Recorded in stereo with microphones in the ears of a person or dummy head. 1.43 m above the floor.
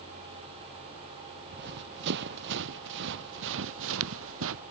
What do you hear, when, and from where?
1.5 s running footsteps: 65° right (ahead or behind); by 4.6 s 75° right (ahead or behind)